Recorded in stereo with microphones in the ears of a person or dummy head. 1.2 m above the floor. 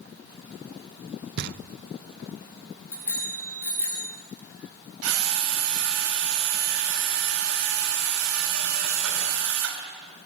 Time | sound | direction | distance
1.4 | knocking | 55° right (ahead or behind) | 0.9 m
2.9 | a bicycle bell | 15° left (ahead or behind) | 8 m
5.0 | a drill | 85° right | 4.5 m